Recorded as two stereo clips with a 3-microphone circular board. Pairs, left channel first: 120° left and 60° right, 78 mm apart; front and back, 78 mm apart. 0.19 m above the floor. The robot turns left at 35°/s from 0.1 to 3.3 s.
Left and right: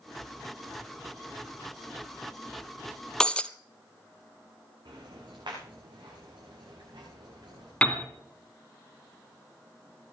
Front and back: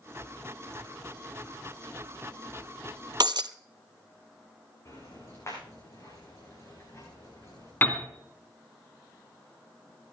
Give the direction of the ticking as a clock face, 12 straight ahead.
2 o'clock.